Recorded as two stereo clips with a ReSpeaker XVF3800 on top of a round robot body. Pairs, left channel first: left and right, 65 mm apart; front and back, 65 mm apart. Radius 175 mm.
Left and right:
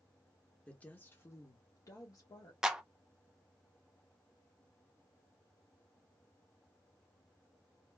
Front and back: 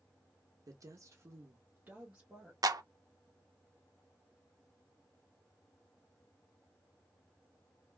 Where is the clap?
170° right, 0.6 m.